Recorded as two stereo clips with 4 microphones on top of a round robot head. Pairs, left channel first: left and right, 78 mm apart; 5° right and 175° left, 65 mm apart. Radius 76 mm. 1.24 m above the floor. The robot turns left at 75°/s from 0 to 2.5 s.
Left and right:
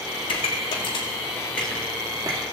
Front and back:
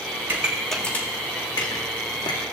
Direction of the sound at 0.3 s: 110° left.